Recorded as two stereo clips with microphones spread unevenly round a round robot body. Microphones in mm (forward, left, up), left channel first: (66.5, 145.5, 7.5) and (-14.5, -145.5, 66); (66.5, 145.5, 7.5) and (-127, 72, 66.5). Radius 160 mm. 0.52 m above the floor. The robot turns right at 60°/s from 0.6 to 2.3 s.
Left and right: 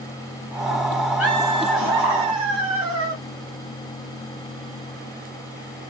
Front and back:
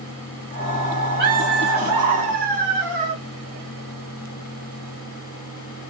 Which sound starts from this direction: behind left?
Laughter, at 1.2 s.